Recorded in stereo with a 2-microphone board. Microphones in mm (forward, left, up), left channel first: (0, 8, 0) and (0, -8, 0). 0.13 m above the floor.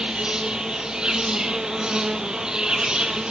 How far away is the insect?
About 1.5 m.